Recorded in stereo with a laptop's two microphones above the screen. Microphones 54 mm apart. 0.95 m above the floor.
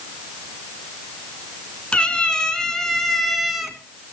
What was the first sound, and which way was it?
A cat meowing, 25° left (ahead or behind).